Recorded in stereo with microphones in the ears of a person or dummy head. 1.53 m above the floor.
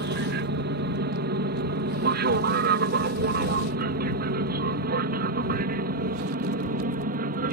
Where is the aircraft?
50° right (ahead or behind); by 7.5 s 40° right (ahead or behind).